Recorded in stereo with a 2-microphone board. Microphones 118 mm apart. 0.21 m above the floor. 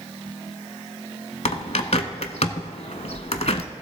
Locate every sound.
1.4 s a bird: 65° left (ahead or behind), 0.7 m